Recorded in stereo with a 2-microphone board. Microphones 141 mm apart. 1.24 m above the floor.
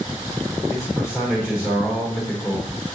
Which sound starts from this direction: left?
A man speaking, at 0.7 s.